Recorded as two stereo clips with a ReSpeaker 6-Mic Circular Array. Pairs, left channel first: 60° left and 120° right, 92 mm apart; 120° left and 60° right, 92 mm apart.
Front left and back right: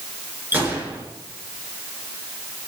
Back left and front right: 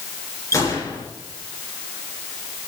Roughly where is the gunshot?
Behind.